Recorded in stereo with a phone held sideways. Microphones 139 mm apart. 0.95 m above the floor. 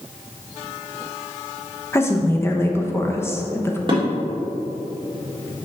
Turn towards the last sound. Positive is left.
turn(degrees=-35)  # may be behind; listen again after turning